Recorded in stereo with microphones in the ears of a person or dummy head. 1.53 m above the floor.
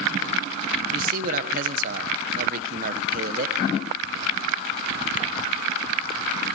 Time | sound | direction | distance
0.9 | a man speaking | 45° right (ahead or behind) | 1.5 m